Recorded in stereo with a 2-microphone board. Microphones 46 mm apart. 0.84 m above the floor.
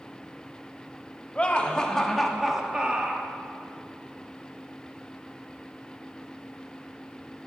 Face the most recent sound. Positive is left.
turn(degrees=-35)  # may be behind; listen again after turning